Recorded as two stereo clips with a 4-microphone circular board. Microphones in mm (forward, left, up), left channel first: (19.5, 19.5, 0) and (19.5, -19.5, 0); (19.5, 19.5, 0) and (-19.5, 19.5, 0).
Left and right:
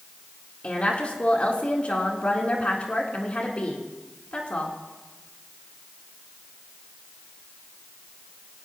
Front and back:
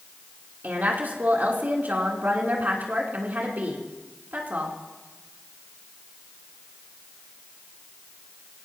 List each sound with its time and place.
0.6 s a woman speaking: 145° left, 3.5 m